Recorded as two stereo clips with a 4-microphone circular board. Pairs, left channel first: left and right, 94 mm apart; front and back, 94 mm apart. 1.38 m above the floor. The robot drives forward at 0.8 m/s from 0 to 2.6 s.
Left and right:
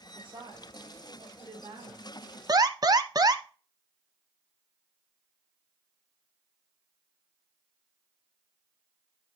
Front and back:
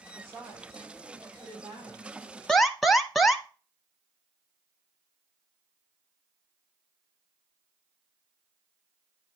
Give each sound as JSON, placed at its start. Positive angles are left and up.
{"t": 0.1, "sound": "a woman speaking", "azimuth_deg": -120, "distance_m": 5.5}
{"t": 2.5, "sound": "an alarm", "azimuth_deg": -80, "distance_m": 0.6}